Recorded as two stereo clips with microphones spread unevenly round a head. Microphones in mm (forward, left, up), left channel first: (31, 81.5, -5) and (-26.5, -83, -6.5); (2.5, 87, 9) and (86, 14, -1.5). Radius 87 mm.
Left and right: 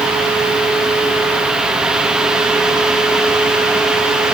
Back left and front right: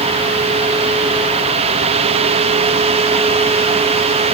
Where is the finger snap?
No finger snap in this recording.